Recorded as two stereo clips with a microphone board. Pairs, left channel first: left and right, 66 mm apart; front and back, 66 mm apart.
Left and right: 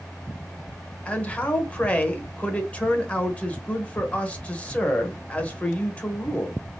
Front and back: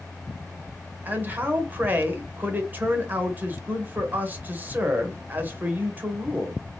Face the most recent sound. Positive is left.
turn(degrees=145)